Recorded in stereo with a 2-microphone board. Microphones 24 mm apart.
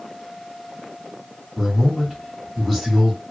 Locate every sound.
1.6 s a man speaking: 15° left (ahead or behind), 1.4 m